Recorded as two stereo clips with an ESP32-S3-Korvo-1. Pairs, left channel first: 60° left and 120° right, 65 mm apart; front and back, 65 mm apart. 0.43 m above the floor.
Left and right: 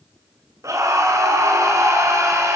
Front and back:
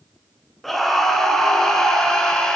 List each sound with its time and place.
0.6 s a scream: 90° right, 6 m; by 2.6 s 80° right, 6.5 m